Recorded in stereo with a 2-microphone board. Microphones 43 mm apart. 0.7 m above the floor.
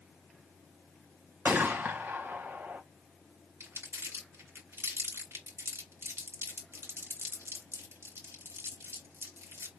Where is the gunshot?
45° right (ahead or behind), 1.1 m.